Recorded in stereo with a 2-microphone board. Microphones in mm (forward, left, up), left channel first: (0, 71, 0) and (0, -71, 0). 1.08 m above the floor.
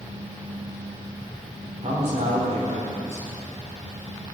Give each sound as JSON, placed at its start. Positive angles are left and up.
{"t": 1.8, "sound": "a man speaking", "side_deg": -55, "distance_m": 3.5}